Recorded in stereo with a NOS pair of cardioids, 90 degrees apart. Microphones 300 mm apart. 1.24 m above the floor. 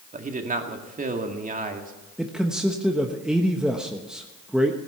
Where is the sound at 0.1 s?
25° right, 2 m.